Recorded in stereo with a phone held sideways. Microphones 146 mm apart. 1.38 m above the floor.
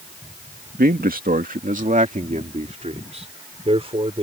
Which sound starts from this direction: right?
A man speaking, at 0.8 s.